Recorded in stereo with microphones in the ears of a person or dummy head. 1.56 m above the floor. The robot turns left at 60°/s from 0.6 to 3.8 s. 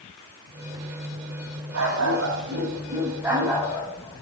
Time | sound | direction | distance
1.7 | a dog barking | 80° right | 4 m